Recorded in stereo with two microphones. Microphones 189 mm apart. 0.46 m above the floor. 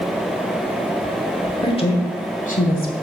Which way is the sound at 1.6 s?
30° left (ahead or behind).